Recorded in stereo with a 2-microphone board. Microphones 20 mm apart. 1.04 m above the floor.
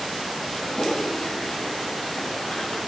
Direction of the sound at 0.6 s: 45° left (ahead or behind).